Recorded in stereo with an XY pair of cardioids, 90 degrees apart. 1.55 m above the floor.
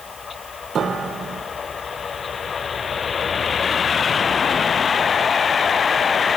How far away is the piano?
About 1.0 m.